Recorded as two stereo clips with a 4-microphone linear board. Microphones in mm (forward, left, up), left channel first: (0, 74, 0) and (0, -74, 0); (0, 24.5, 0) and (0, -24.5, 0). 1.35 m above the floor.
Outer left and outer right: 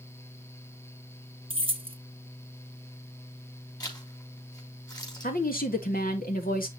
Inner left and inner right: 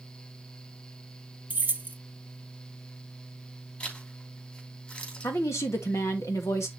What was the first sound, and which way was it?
Keys jangling, 35° right (ahead or behind).